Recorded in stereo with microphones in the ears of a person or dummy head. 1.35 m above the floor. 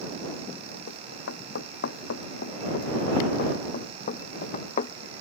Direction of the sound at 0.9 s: 70° left (ahead or behind).